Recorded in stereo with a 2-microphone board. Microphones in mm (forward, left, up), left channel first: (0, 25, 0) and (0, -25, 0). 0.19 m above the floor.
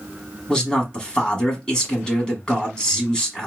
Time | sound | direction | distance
0.5 | a man speaking | 15° left (ahead or behind) | 1.3 m